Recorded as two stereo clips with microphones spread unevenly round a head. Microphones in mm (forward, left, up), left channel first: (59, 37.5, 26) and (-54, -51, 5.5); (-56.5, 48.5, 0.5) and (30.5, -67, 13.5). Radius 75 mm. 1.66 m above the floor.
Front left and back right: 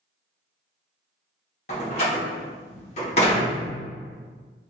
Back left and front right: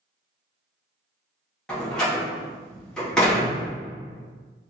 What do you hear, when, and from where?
1.7 s a door slam: 40° left, 1.3 m